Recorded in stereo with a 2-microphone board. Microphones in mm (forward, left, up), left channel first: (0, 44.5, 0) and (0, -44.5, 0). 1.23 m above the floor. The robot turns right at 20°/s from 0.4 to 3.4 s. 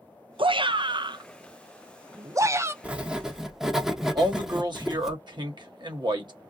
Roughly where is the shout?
Right.